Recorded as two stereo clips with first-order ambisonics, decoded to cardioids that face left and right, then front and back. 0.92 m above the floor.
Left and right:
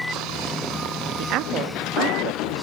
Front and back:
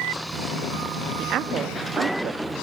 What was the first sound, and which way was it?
A woman speaking, 130° right.